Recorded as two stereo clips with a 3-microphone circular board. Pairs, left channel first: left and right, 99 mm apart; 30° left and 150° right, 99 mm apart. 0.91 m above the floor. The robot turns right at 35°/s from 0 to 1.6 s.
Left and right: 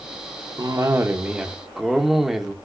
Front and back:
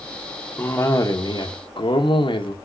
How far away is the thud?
I don't hear a thud.